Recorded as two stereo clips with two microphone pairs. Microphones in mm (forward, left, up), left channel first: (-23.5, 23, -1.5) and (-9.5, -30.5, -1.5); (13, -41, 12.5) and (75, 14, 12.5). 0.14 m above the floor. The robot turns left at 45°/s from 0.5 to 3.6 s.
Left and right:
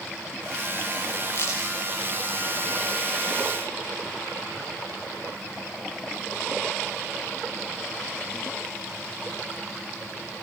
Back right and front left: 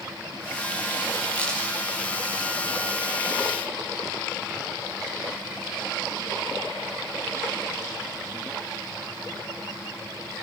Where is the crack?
145° left, 7 m; by 1.6 s 135° left, 7 m.